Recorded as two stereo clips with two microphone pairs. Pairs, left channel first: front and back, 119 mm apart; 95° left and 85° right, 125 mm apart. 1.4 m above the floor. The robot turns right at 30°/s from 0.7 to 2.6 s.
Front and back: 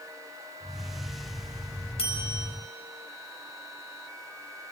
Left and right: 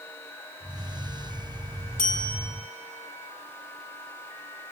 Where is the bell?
35° right, 4.5 m; by 2.5 s 20° right, 4.5 m.